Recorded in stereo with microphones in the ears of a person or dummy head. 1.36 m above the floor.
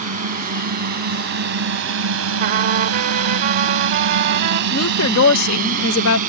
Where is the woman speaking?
90° left.